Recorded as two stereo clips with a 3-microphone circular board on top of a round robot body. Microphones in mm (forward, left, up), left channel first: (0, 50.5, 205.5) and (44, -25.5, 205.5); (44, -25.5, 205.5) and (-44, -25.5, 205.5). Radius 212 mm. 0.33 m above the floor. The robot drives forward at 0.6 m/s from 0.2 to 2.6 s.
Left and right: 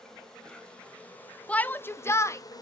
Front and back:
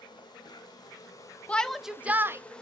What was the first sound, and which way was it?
An insect, 35° left.